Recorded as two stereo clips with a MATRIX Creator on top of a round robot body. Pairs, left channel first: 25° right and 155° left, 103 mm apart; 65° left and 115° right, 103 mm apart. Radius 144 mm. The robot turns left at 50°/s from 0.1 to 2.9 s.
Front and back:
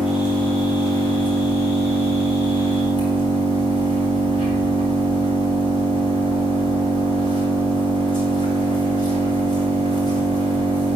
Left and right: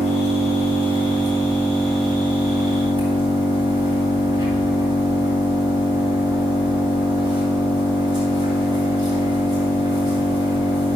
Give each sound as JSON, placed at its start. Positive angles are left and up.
{"t": 0.0, "sound": "an engine running", "azimuth_deg": 80, "distance_m": 4.0}